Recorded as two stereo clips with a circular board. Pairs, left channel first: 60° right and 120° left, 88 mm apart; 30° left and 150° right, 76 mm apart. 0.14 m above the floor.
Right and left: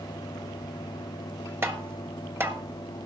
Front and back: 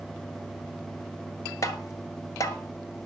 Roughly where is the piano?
I don't hear a piano.